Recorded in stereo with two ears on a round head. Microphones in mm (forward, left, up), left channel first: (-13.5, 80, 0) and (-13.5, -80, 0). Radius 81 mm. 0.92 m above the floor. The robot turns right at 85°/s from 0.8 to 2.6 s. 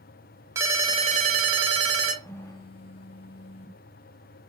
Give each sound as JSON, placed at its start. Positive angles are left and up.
{"t": 0.6, "sound": "a ringtone", "azimuth_deg": -160, "distance_m": 0.8}
{"t": 2.2, "sound": "a phone buzzing", "azimuth_deg": 0, "distance_m": 0.5}